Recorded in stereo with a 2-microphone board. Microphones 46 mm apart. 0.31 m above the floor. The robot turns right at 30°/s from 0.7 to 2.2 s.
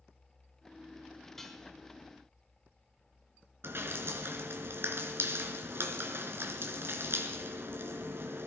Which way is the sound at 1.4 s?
10° left (ahead or behind).